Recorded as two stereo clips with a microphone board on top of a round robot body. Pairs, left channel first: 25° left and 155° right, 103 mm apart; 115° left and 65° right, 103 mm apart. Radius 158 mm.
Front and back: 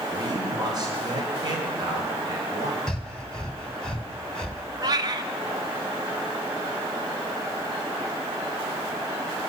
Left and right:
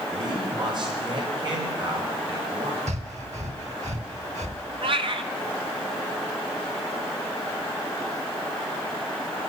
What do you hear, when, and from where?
0.1 s a man speaking: 110° right, 5 m
2.9 s breathing: 60° right, 2.5 m
4.8 s a cat meowing: 105° right, 1.1 m